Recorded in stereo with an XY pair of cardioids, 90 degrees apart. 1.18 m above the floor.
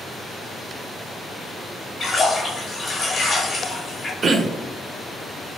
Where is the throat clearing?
50° right, 0.5 m.